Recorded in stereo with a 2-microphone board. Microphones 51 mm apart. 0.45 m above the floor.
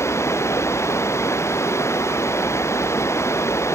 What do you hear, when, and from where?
0.0 s running water: 60° left (ahead or behind)